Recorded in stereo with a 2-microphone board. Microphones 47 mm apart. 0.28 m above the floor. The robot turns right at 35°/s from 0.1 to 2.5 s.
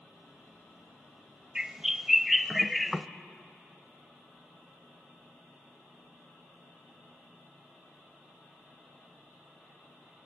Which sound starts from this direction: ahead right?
A bird, at 1.6 s.